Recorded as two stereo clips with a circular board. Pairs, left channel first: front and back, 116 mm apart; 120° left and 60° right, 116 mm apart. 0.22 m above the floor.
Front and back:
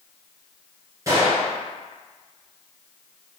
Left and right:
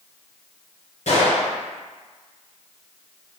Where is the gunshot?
120° left, 1.8 m.